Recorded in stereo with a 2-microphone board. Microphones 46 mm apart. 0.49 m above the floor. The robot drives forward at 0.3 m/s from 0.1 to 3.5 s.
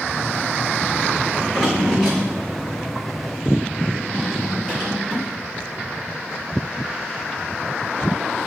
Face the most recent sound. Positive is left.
turn(degrees=0)  # may be behind; listen again after turning